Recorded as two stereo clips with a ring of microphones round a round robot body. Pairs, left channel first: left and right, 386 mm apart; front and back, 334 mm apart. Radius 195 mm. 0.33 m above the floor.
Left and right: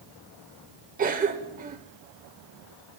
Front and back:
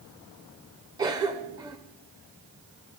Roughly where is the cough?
Behind right.